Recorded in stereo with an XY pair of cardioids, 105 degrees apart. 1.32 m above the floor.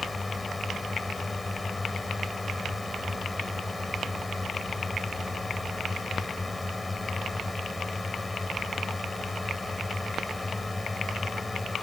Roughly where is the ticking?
I don't hear ticking.